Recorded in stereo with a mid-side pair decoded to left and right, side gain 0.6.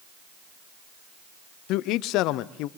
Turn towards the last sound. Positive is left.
turn(degrees=70)